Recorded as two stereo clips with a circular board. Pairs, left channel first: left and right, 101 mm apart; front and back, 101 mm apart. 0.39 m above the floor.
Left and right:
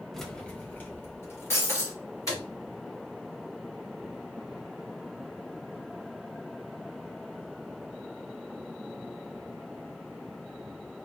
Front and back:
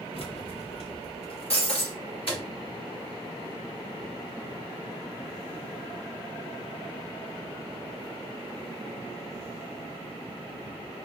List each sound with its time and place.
0.1 s keys jangling: straight ahead, 0.9 m; by 2.4 s 30° left, 2.5 m
1.5 s breaking glass: 25° left, 2 m